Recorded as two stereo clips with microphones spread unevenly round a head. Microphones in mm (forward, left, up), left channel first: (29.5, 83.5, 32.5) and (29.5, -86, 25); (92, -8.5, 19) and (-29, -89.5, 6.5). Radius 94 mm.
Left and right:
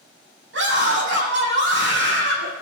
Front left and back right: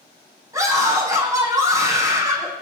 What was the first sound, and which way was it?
A scream, 80° right.